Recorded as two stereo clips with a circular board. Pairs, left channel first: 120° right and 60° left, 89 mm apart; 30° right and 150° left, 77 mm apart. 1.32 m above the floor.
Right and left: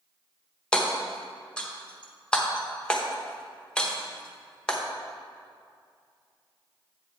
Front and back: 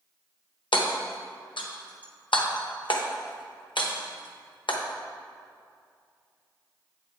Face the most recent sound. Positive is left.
turn(degrees=-40)